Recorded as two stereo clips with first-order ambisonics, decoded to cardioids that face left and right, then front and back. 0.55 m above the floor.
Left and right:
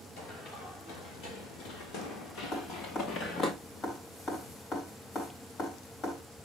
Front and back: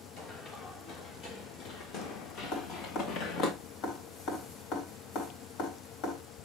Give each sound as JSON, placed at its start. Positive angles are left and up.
{"t": 0.2, "sound": "running footsteps", "azimuth_deg": 55, "distance_m": 6.0}
{"t": 2.5, "sound": "dripping", "azimuth_deg": 30, "distance_m": 4.0}